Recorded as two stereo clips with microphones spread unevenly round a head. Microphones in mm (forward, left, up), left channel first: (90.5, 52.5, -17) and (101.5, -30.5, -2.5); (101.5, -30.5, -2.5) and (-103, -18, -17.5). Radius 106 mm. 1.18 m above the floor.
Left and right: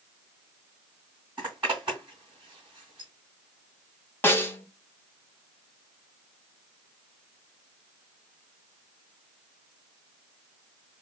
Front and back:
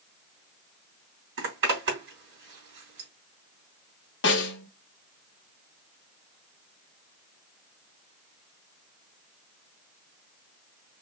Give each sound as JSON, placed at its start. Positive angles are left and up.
{"t": 1.4, "sound": "a zipper", "azimuth_deg": -160, "distance_m": 3.0}
{"t": 4.2, "sound": "a snare drum", "azimuth_deg": 35, "distance_m": 1.3}